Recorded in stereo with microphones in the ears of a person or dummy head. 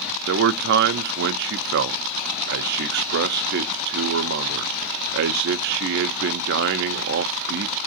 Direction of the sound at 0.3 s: 65° right (ahead or behind).